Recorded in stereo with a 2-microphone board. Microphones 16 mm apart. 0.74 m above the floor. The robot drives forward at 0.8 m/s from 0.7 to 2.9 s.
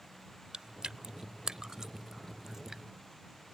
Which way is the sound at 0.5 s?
60° right (ahead or behind).